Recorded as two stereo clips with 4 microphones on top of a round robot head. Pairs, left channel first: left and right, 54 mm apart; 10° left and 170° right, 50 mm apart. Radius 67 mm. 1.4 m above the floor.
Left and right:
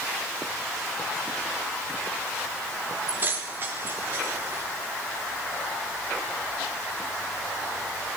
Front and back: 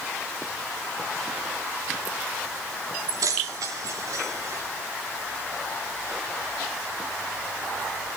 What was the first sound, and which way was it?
Keys jangling, 155° right.